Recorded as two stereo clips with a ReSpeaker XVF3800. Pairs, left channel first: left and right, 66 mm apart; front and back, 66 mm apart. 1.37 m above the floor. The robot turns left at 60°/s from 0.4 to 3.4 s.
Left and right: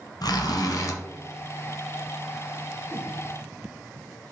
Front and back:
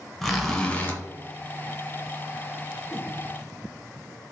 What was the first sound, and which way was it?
A zipper, 90° left.